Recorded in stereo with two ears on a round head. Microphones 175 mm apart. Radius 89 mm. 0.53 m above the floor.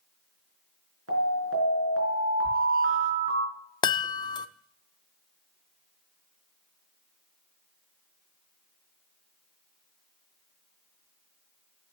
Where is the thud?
40° right (ahead or behind), 0.6 m.